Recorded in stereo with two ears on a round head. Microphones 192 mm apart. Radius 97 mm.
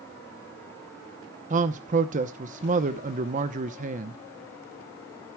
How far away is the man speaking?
About 0.9 m.